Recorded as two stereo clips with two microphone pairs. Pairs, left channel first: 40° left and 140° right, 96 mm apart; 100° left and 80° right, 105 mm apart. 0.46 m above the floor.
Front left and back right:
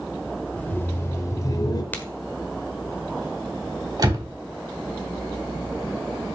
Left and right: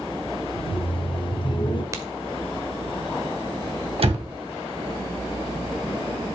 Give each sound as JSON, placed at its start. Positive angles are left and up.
{"t": 0.6, "sound": "laughter", "azimuth_deg": 110, "distance_m": 1.3}
{"t": 1.9, "sound": "a crack", "azimuth_deg": -30, "distance_m": 1.3}
{"t": 4.0, "sound": "a door slam", "azimuth_deg": -95, "distance_m": 2.5}